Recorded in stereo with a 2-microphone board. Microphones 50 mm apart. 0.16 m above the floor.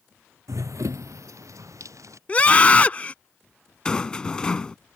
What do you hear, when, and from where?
0.5 s running footsteps: 80° right; by 2.2 s 85° right
2.3 s a scream: 25° left (ahead or behind)
3.9 s a rattle: 15° left (ahead or behind)